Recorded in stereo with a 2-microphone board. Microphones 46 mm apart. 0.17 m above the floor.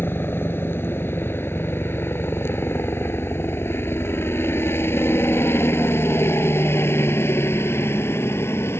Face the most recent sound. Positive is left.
turn(degrees=65)  # may be behind; listen again after turning